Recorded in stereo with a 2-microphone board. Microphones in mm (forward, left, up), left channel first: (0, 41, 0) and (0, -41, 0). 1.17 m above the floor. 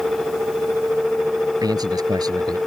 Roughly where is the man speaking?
Right.